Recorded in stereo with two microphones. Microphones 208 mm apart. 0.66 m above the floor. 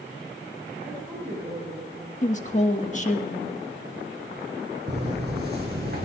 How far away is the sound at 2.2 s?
About 1.3 m.